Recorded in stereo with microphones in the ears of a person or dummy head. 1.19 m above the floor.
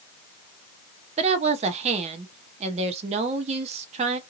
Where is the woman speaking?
30° right (ahead or behind), 0.5 m.